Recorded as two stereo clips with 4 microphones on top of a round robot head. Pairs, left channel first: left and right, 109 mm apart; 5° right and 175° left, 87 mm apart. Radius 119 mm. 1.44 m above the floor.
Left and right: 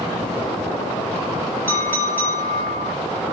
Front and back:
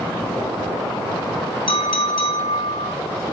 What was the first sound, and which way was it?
A clink, 15° left.